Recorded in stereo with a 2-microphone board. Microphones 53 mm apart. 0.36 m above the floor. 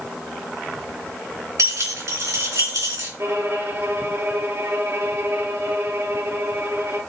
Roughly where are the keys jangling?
Right.